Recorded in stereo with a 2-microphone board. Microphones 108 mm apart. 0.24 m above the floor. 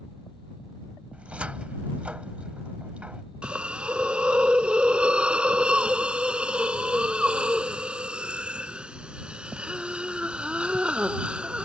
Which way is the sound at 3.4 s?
10° right (ahead or behind).